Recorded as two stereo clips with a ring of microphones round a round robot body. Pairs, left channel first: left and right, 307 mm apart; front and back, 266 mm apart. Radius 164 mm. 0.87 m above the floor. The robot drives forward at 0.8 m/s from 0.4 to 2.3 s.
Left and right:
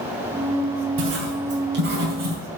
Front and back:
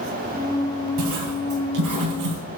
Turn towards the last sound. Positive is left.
turn(degrees=-150)